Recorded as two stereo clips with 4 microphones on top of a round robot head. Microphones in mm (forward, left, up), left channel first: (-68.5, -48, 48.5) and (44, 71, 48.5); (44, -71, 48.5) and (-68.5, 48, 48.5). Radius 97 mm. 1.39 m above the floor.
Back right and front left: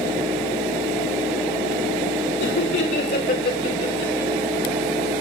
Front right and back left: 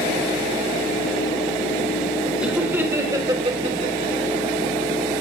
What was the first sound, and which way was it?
Laughter, 145° right.